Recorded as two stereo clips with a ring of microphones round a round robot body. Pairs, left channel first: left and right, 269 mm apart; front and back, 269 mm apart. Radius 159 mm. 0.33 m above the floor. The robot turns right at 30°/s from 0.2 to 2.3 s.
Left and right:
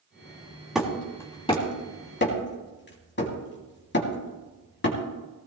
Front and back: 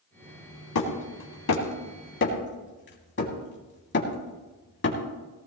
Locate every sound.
0.8 s hammering: 5° right, 3 m; by 5.0 s 45° left, 3 m